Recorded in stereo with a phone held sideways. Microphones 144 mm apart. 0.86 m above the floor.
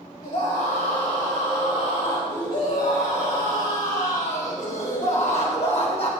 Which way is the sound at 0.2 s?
75° left (ahead or behind).